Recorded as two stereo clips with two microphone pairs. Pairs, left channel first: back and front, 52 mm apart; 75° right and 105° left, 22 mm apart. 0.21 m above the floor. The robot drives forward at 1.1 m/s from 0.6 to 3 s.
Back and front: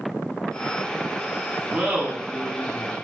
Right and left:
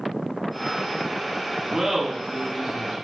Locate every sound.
1.7 s laughter: 40° left, 1.4 m; by 3.0 s 135° left, 1.4 m